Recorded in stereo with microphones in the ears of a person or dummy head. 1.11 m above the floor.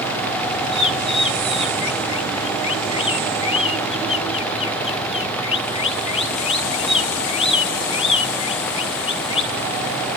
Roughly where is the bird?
Left.